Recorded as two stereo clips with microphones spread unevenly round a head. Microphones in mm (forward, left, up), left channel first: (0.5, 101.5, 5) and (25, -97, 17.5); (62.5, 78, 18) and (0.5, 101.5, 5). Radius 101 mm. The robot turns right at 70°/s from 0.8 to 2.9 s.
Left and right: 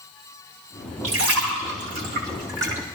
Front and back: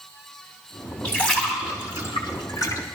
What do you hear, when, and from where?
1.0 s a splash: 120° right, 3.5 m; by 2.8 s 5° left, 3.5 m